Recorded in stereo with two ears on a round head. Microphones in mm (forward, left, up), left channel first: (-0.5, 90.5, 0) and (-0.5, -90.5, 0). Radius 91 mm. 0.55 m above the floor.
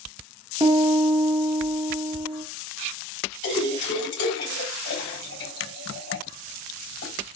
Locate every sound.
0.6 s a piano: 25° right (ahead or behind), 0.7 m
3.4 s a splash: 60° left (ahead or behind), 2.5 m